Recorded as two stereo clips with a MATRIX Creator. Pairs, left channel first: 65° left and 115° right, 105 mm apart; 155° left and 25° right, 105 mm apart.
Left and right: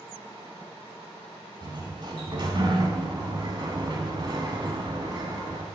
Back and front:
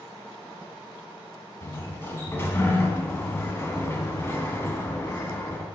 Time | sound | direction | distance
1.6 | a sliding door | 140° right | 1.0 m